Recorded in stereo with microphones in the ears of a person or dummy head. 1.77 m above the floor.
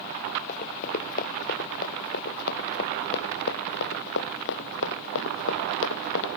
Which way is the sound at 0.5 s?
40° left (ahead or behind).